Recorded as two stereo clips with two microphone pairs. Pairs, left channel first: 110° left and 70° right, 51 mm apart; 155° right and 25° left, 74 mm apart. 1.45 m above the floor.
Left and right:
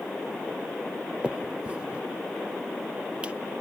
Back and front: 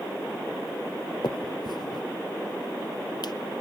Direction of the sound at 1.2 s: 135° right.